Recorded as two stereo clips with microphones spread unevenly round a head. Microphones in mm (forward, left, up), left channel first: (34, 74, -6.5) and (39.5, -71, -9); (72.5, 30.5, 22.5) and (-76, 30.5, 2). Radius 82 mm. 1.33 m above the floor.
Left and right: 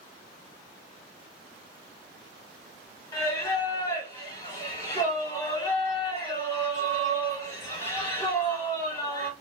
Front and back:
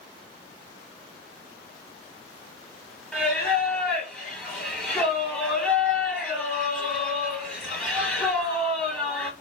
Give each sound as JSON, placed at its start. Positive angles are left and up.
{"t": 3.1, "sound": "singing", "azimuth_deg": 65, "distance_m": 1.2}